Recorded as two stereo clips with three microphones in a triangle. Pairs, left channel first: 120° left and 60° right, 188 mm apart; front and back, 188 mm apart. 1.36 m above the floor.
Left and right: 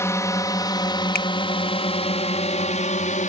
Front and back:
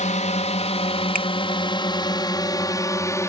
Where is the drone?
45° left; by 3.3 s 75° left.